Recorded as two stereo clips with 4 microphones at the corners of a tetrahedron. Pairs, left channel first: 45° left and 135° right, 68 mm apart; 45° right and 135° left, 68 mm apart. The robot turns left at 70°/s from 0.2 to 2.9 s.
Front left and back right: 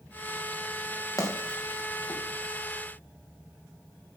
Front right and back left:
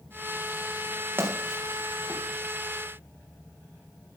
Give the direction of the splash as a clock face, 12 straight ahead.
9 o'clock.